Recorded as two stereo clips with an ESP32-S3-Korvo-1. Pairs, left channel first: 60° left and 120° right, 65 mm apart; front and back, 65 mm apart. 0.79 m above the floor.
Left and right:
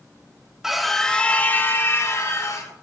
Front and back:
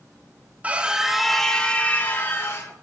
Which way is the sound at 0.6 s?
165° left.